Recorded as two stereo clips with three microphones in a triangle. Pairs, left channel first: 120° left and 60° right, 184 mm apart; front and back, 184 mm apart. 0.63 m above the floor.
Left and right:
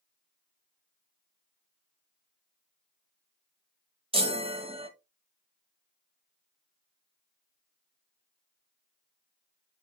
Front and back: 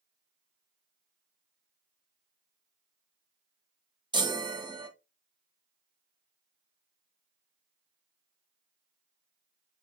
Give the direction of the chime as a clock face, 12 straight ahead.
4 o'clock.